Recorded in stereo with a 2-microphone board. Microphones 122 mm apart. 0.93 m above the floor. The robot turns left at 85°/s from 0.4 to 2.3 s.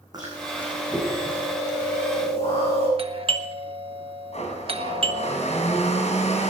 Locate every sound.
0.1 s chewing: 145° right, 8.5 m; by 2.9 s 55° left, 8.5 m
3.0 s a doorbell: 50° right (ahead or behind), 1.2 m
4.3 s a blender: 60° left (ahead or behind), 3.5 m